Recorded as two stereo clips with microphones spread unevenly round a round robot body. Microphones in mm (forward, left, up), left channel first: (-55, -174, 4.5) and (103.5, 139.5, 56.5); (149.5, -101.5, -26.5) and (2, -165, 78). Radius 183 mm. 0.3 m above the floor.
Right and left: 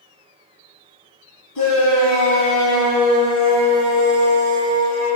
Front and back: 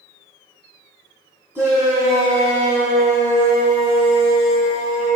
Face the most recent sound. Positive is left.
turn(degrees=-70)